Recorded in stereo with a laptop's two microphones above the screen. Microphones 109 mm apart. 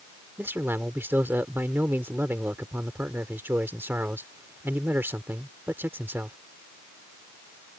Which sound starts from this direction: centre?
A man speaking, at 0.4 s.